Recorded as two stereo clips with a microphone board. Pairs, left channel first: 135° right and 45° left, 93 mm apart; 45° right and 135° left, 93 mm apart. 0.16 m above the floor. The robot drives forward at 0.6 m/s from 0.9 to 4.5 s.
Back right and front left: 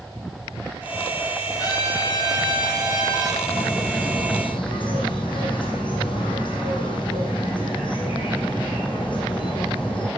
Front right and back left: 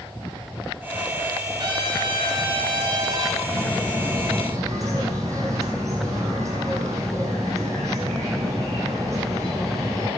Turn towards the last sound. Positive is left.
turn(degrees=-170)